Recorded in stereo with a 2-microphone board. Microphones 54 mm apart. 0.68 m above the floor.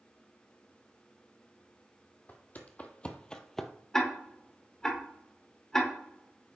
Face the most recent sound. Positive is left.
turn(degrees=10)  # may be behind; listen again after turning